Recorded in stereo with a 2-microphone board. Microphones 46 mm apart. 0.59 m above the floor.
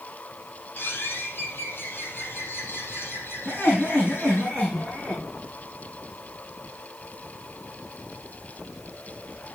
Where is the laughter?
20° left (ahead or behind), 6.5 m.